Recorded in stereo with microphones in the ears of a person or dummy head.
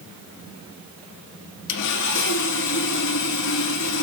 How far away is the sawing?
About 1.5 m.